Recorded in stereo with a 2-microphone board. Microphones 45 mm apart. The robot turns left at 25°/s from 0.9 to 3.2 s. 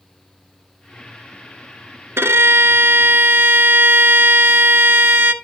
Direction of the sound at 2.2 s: 70° right (ahead or behind).